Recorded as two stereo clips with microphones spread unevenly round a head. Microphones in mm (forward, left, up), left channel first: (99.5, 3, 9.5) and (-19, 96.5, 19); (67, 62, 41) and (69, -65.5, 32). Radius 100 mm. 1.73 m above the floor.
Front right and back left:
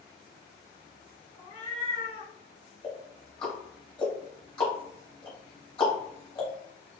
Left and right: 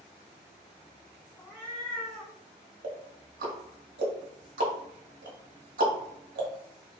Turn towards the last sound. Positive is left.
turn(degrees=-110)